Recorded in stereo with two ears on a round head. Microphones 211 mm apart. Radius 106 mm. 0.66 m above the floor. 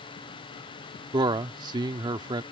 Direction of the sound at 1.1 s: 20° right (ahead or behind).